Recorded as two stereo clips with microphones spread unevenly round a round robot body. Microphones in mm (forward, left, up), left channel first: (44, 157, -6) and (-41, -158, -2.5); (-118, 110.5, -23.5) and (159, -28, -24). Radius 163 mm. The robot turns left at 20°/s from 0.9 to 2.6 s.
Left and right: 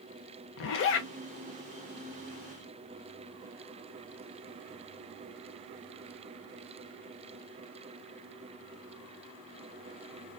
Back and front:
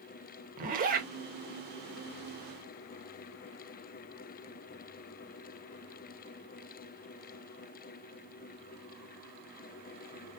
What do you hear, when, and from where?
0.6 s a zipper: 30° left, 0.6 m